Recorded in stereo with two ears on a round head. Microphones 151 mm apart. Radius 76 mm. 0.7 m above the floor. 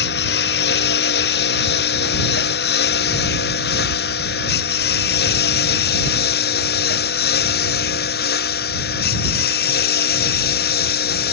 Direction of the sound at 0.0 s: 65° left (ahead or behind).